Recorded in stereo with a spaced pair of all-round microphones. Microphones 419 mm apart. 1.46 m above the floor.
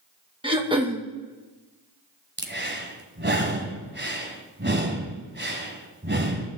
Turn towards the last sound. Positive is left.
turn(degrees=-25)  # may be behind; listen again after turning